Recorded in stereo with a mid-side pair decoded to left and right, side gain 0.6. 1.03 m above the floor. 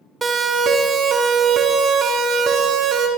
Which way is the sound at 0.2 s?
30° right.